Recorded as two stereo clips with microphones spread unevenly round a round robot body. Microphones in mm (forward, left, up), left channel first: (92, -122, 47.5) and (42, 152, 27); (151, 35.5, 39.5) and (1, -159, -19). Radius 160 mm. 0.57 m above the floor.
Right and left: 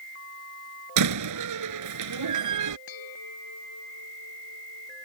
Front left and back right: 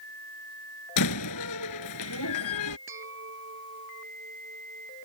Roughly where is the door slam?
Left.